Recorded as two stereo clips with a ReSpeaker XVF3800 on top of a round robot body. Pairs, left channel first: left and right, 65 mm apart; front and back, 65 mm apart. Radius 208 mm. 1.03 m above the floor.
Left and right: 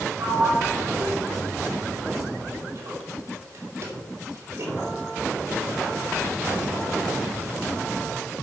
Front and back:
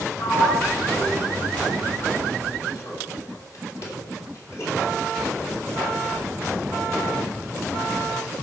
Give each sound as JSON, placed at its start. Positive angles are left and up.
{"t": 0.2, "sound": "a sliding door", "azimuth_deg": -40, "distance_m": 2.5}